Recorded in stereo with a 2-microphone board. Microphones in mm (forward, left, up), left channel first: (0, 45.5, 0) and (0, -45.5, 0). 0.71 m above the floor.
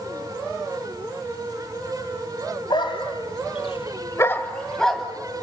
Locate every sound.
2.7 s a dog barking: 60° left (ahead or behind), 2.0 m; by 5.0 s centre (ahead or behind), 2.5 m